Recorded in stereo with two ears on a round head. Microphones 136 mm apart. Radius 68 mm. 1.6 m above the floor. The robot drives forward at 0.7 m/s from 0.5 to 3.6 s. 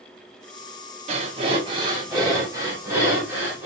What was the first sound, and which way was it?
Breathing, 45° right (ahead or behind).